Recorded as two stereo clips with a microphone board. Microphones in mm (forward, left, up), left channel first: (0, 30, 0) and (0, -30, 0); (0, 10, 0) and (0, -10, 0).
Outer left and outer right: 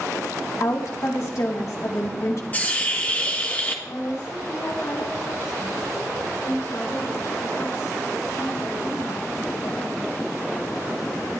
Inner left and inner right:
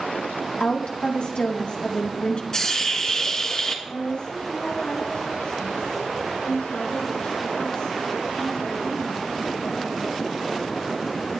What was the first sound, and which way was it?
A woman speaking, 65° left (ahead or behind).